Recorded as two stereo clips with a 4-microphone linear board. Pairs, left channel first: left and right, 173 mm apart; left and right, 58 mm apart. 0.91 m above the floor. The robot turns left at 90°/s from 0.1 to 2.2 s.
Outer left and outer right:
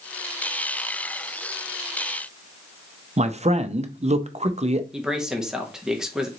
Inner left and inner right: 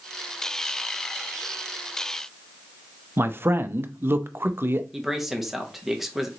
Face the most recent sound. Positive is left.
turn(degrees=-5)  # may be behind; listen again after turning